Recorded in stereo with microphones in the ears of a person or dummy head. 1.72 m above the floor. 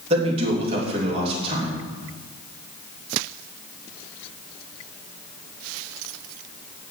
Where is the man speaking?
40° right (ahead or behind), 3 m.